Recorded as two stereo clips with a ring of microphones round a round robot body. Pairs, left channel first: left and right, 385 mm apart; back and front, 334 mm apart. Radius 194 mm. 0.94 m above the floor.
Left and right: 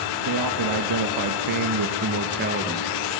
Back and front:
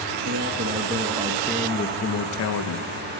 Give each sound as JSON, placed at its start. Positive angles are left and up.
{"t": 0.2, "sound": "a man speaking", "azimuth_deg": -55, "distance_m": 1.4}